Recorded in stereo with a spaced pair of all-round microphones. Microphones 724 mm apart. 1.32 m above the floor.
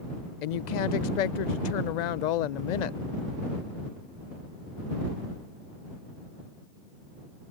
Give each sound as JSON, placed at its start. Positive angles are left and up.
{"t": 0.4, "sound": "a woman speaking", "side_deg": 75}